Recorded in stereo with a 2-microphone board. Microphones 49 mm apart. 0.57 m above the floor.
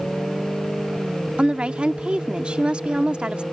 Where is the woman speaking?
20° right (ahead or behind).